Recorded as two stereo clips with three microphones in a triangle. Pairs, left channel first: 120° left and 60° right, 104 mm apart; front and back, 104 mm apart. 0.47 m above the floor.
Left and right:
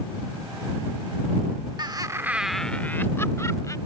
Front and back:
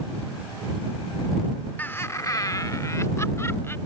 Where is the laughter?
65° right; by 3.8 s 65° left.